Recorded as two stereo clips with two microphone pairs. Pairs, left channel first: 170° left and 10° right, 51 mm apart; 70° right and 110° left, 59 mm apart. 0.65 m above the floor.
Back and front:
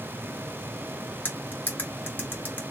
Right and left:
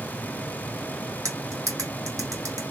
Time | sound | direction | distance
1.2 | cutlery clinking | 125° left | 1.7 m